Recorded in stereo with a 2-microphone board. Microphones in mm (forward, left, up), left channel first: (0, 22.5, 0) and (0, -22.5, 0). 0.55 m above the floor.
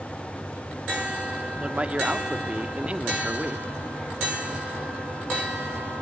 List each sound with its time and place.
1.6 s a man speaking: 30° right (ahead or behind), 1.2 m